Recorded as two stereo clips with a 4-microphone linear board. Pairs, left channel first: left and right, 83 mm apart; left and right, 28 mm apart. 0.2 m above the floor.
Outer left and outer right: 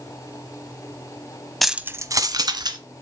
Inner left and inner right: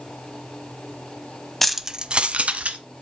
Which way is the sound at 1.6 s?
Centre (ahead or behind).